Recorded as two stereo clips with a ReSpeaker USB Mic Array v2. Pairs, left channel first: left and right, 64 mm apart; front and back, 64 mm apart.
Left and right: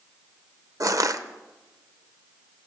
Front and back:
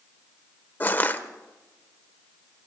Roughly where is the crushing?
Ahead right.